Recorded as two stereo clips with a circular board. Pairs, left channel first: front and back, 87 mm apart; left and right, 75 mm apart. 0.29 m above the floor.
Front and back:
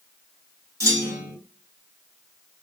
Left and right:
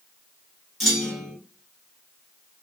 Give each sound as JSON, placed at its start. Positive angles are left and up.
{"t": 0.8, "sound": "a clunk", "azimuth_deg": 180, "distance_m": 1.4}